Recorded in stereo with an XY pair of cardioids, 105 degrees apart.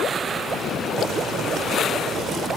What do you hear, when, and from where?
1.0 s boiling: 70° right